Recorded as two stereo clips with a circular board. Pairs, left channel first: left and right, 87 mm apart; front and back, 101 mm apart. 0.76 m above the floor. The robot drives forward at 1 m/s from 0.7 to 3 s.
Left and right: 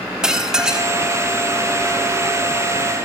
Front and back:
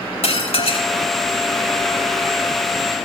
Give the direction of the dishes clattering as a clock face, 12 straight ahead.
12 o'clock.